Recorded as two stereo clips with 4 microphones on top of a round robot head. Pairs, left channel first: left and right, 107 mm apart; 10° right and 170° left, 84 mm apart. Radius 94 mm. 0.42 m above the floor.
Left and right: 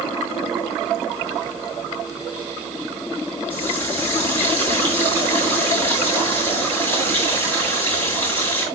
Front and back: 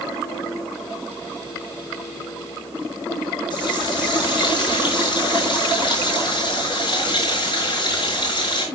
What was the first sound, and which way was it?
A running tap, 15° left.